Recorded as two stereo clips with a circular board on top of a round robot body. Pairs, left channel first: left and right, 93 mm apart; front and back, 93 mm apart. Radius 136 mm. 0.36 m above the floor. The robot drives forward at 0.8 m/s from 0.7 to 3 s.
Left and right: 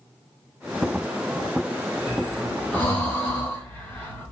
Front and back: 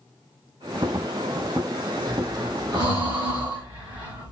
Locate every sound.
2.1 s breathing: 150° left, 1.3 m; by 4.3 s 160° left, 1.9 m